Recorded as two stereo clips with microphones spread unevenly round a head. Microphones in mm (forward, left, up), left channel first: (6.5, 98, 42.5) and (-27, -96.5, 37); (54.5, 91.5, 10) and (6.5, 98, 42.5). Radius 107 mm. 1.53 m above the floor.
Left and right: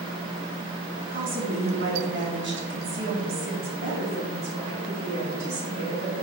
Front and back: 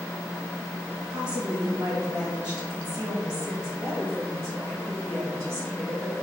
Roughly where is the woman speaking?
Behind right.